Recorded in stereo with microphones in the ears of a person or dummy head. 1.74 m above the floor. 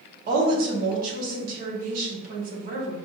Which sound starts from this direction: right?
A woman speaking, at 0.3 s.